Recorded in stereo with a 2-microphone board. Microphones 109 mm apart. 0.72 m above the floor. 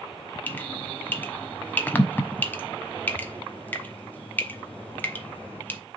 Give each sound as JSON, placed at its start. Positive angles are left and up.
{"t": 0.5, "sound": "dripping", "side_deg": 15, "distance_m": 0.9}